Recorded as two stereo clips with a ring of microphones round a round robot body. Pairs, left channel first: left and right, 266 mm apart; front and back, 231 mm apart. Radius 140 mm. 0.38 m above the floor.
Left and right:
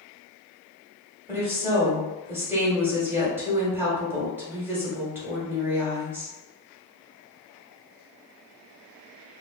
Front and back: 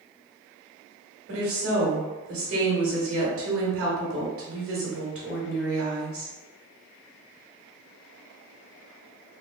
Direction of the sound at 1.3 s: 170° right.